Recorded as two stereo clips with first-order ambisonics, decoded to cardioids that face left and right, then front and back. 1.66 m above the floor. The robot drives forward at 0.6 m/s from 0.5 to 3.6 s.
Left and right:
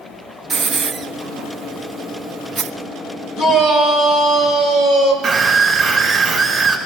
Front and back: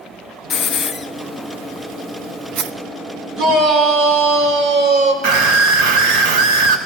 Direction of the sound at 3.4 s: 135° left.